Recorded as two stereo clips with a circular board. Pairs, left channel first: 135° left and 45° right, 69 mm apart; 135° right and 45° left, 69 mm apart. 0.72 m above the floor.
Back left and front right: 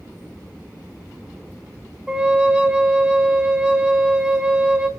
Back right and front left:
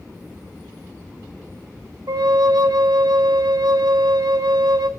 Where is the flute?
30° left, 0.8 m.